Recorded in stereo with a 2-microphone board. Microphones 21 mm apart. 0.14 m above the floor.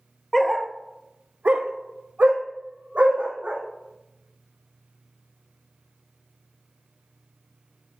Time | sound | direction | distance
0.3 | a dog barking | 10° left (ahead or behind) | 0.7 m